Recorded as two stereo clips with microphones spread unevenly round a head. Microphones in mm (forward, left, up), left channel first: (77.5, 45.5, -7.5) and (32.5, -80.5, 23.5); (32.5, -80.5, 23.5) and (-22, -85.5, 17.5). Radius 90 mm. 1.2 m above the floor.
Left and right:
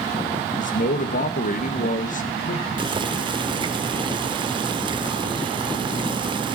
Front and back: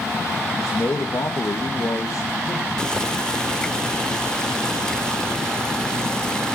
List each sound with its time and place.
0.6 s a man speaking: 55° left, 1.7 m
2.8 s boiling: 65° right, 1.6 m